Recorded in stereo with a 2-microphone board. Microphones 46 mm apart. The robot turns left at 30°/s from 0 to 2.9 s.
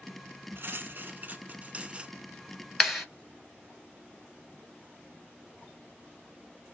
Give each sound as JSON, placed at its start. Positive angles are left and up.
{"t": 0.6, "sound": "cutlery clinking", "azimuth_deg": -100, "distance_m": 1.2}
{"t": 2.8, "sound": "a clap", "side_deg": 0, "distance_m": 2.0}